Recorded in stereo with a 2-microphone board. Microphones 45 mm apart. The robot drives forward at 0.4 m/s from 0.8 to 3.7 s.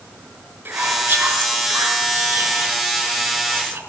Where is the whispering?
45° right (ahead or behind), 5.5 m; by 3.8 s 55° right (ahead or behind), 5 m.